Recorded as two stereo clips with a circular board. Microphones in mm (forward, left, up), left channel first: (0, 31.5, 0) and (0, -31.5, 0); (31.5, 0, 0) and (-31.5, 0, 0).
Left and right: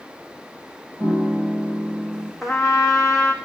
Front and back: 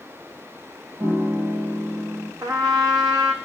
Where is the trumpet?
Straight behind, 1.1 m.